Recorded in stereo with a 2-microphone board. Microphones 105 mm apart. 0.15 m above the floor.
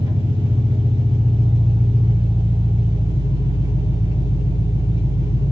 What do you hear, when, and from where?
0.0 s an engine running: 55° right (ahead or behind), 6.5 m